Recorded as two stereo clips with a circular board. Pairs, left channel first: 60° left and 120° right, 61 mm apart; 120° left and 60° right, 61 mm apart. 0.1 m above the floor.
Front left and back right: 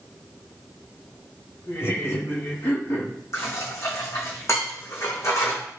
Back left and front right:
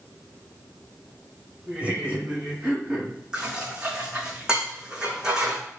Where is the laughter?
10° left, 5 m; by 3.1 s 25° left, 5.5 m.